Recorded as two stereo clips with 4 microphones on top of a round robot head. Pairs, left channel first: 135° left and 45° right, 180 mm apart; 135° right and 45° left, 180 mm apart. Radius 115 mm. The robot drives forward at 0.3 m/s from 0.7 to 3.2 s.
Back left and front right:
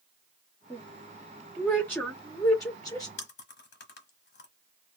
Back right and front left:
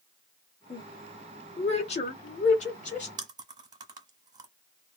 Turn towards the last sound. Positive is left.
turn(degrees=110)